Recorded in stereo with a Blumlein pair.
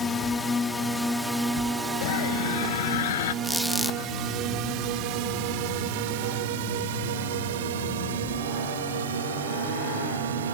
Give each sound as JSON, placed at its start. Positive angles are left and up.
{"t": 0.0, "sound": "a drone", "azimuth_deg": 15}
{"t": 2.0, "sound": "a scream", "azimuth_deg": 60}
{"t": 3.4, "sound": "a squeak", "azimuth_deg": 0}